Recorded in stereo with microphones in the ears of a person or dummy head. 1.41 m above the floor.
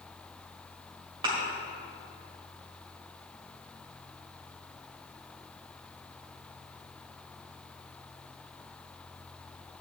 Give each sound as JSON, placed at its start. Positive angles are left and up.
{"t": 1.2, "sound": "a thud", "side_deg": -25, "distance_m": 1.7}